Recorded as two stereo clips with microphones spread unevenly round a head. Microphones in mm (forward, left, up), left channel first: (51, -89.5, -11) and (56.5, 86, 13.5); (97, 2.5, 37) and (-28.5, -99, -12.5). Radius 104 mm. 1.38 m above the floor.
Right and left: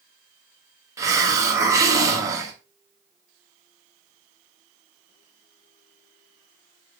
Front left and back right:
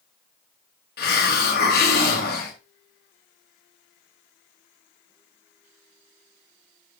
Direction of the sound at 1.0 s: 15° left.